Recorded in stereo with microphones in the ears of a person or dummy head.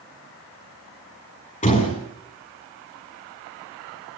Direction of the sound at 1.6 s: 30° left (ahead or behind).